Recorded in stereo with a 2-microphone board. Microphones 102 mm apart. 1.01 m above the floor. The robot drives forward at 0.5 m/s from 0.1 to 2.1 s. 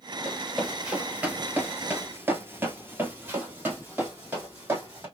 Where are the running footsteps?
5° right (ahead or behind), 1.9 m; by 5.1 s 20° right (ahead or behind), 2.5 m.